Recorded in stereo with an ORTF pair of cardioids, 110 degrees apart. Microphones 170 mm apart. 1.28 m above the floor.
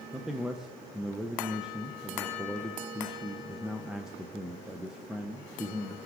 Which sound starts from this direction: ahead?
A man speaking, at 0.1 s.